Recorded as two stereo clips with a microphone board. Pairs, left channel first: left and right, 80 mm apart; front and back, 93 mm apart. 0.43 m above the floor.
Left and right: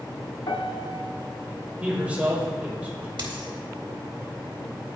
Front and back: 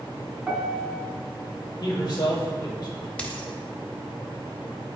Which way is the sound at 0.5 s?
100° left.